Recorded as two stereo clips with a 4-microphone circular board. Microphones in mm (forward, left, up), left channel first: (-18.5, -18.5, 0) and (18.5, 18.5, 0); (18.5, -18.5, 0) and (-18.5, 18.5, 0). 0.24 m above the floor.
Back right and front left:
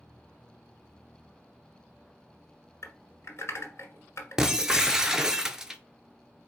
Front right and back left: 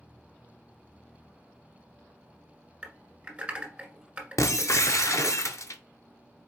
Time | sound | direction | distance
2.8 | typing on a keyboard | 160° right | 1.5 m
4.4 | breaking glass | 35° right | 0.5 m